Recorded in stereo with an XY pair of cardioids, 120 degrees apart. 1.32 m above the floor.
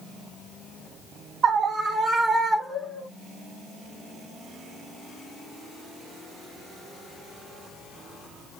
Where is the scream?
40° right, 0.7 m; by 3.1 s 20° left, 1.1 m.